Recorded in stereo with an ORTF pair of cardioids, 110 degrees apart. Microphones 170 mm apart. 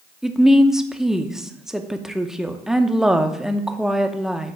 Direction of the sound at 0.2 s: 5° right.